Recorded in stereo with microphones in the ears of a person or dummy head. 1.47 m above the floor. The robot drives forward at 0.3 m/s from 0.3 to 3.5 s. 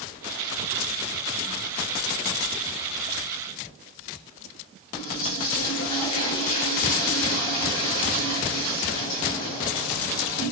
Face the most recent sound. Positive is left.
turn(degrees=25)  # may be behind; listen again after turning